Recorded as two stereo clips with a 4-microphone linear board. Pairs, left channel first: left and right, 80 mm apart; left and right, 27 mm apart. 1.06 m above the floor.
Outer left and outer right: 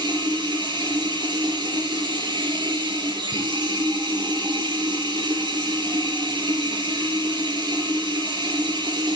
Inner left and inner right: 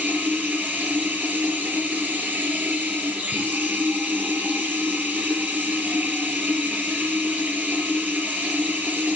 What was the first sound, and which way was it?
Running water, 85° right.